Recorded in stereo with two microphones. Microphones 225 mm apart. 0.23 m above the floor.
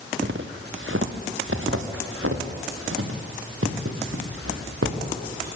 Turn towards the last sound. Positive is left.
turn(degrees=-85)